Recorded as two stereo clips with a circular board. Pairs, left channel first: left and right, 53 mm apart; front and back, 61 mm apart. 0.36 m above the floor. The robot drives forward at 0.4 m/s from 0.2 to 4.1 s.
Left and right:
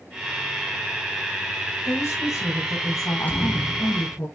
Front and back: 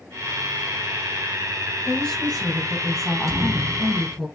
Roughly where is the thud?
Behind left.